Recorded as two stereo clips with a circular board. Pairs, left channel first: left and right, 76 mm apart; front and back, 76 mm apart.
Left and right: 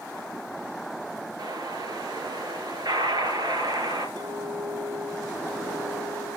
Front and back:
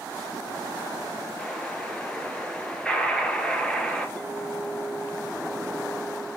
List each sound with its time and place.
1.4 s an explosion: 80° right, 3 m
4.2 s a clink: 80° right, 3.5 m